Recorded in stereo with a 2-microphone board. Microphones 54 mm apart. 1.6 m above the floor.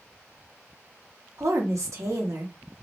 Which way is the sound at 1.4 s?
75° right (ahead or behind).